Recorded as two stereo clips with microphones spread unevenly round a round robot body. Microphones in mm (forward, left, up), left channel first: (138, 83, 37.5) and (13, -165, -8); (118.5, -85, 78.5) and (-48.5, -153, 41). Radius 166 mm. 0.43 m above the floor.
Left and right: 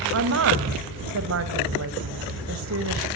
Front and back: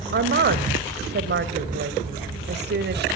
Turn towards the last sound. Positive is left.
turn(degrees=-160)